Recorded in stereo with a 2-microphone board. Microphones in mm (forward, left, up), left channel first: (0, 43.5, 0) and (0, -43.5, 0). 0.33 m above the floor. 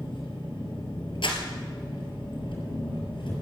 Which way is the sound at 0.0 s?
75° left (ahead or behind).